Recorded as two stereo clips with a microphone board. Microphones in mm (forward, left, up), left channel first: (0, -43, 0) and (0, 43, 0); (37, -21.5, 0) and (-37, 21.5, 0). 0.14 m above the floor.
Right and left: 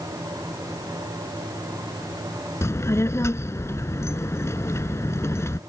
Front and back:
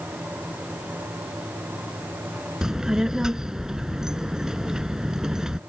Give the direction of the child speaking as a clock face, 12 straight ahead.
4 o'clock.